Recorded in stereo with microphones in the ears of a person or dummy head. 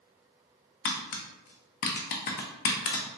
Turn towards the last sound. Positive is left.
turn(degrees=50)  # may be behind; listen again after turning